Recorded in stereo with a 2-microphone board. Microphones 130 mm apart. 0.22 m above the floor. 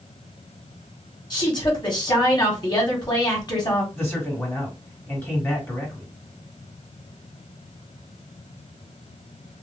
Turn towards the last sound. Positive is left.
turn(degrees=20)  # may be behind; listen again after turning